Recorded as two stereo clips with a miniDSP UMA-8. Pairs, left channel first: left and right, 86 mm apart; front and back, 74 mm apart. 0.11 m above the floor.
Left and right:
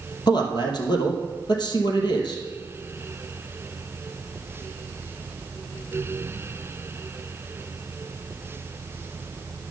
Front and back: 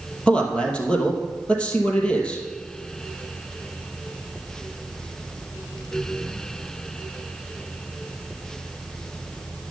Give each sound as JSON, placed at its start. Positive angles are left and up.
{"t": 0.3, "sound": "a man speaking", "azimuth_deg": 75, "distance_m": 2.5}